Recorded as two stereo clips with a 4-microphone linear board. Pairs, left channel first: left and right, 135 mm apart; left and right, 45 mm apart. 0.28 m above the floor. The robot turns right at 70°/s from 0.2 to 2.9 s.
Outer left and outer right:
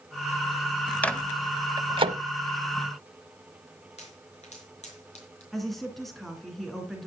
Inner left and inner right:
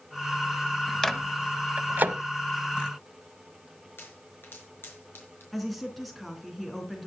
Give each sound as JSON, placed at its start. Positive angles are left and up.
{"t": 1.0, "sound": "a microwave", "side_deg": 10, "distance_m": 1.0}
{"t": 4.0, "sound": "a pop", "side_deg": 55, "distance_m": 5.0}
{"t": 5.5, "sound": "a woman speaking", "side_deg": 0, "distance_m": 3.5}